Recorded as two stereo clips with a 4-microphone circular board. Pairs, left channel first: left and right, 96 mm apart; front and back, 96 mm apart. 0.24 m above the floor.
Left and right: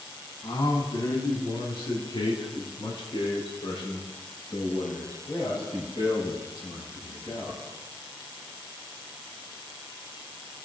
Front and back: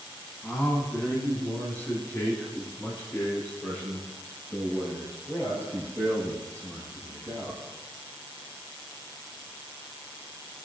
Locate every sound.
0.4 s a man speaking: 70° left, 2.0 m